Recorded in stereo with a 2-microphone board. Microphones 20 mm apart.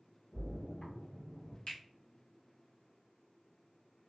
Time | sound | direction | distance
0.3 | a splash | 60° left (ahead or behind) | 1.7 m
1.7 | a finger snap | 65° left (ahead or behind) | 0.9 m